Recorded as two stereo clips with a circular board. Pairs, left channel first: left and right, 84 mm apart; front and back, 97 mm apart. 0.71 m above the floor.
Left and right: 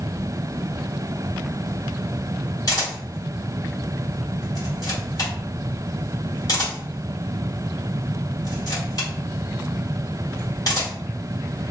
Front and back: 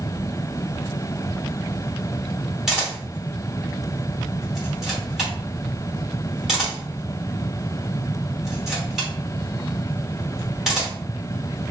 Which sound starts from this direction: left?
A camera shutter, at 2.7 s.